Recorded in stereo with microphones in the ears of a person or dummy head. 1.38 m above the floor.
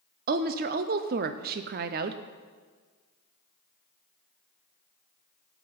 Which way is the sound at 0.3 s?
50° right (ahead or behind).